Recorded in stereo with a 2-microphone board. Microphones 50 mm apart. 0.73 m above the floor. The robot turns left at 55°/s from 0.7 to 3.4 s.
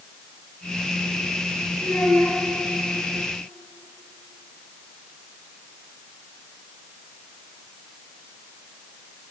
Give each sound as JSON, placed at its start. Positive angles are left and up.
{"t": 1.8, "sound": "a child speaking", "azimuth_deg": 120, "distance_m": 3.5}